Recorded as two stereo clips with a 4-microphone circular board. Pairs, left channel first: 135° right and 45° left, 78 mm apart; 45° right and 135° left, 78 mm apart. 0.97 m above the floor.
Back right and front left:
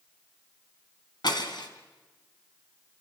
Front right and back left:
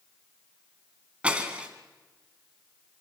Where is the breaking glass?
150° right, 2.5 m.